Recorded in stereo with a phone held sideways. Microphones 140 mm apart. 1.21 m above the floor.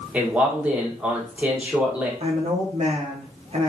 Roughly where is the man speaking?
Centre.